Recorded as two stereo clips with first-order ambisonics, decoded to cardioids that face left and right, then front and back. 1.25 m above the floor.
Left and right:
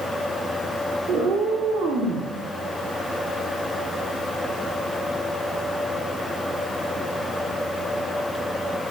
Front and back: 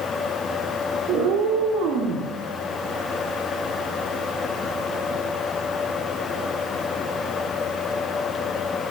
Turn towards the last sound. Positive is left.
turn(degrees=-145)